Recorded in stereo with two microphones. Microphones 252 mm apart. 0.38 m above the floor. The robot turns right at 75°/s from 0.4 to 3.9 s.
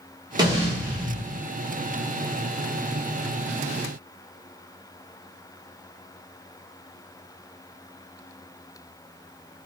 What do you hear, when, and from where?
0.4 s an explosion: 155° right, 0.8 m; by 1.5 s 70° right, 0.8 m